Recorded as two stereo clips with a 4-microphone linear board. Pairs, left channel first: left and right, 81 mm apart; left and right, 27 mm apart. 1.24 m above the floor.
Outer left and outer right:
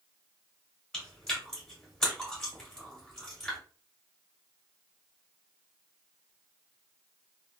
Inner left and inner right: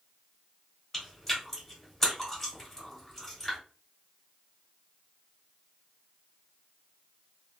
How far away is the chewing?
About 1.9 m.